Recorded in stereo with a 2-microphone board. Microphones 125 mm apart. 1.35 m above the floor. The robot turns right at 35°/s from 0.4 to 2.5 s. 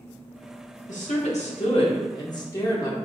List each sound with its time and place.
0.9 s a woman speaking: 95° left, 1.1 m; by 3.0 s 150° left, 1.1 m